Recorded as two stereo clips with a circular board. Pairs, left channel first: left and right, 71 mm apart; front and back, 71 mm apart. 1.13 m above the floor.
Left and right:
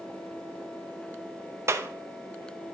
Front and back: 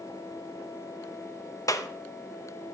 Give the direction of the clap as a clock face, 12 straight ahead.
1 o'clock.